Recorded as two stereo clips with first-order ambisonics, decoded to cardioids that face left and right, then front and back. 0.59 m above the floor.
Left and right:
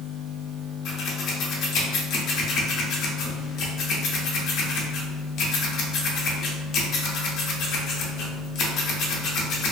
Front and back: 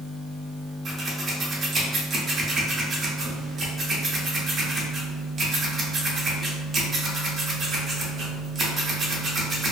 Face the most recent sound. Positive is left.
turn(degrees=120)